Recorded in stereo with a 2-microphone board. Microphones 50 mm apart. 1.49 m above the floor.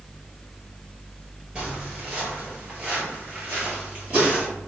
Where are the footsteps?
30° right (ahead or behind), 1.8 m; by 4.5 s 25° right (ahead or behind), 1.8 m.